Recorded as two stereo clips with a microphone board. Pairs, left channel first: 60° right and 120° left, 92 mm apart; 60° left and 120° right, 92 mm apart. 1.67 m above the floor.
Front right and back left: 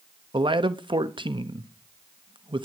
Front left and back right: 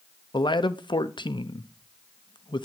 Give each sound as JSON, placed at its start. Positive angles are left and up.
{"t": 0.3, "sound": "a man speaking", "azimuth_deg": 90, "distance_m": 0.9}